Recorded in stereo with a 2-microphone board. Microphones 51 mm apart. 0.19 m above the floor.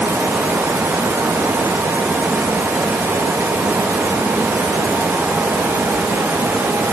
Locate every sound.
Only background noise.